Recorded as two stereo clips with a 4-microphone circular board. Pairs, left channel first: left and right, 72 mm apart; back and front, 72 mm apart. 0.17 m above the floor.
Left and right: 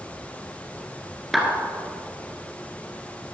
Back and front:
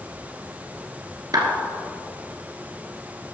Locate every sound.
1.3 s a clap: straight ahead, 1.7 m